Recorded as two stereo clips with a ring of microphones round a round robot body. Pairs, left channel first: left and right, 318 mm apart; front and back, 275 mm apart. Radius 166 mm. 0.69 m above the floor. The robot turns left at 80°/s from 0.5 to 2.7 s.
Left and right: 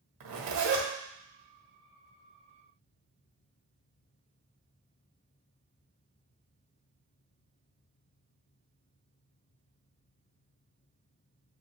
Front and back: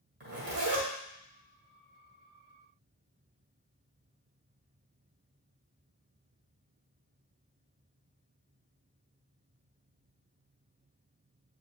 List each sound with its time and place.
0.2 s a zipper: 120° right, 1.8 m; by 0.9 s 150° right, 1.8 m